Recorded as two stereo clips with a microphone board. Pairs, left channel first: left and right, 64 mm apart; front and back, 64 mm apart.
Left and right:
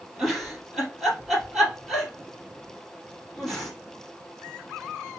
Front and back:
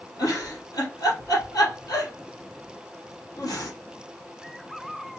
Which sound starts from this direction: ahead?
A giggle, at 0.2 s.